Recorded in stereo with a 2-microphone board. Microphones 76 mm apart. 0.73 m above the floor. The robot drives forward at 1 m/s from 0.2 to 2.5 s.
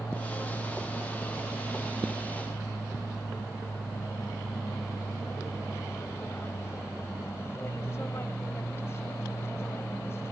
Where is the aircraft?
35° left (ahead or behind).